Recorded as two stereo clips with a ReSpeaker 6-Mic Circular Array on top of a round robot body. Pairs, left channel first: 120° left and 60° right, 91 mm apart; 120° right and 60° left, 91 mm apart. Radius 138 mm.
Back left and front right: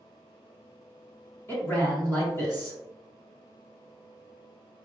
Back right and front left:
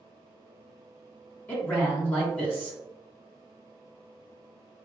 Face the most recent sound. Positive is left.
turn(degrees=180)